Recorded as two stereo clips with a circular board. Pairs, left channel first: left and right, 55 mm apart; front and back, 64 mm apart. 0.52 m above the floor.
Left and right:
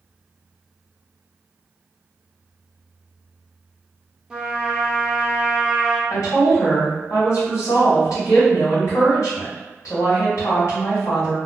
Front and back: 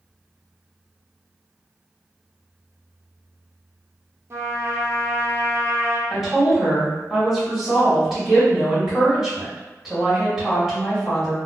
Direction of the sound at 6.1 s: 95° left.